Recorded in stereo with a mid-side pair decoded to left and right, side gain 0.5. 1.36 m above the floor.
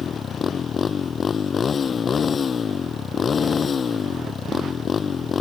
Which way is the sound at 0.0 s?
40° left.